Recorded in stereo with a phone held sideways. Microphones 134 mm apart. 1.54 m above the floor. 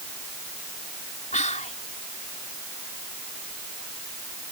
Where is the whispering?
65° left (ahead or behind).